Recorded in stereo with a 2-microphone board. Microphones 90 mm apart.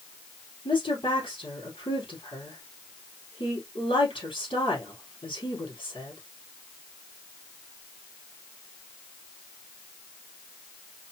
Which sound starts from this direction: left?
A woman speaking, at 0.7 s.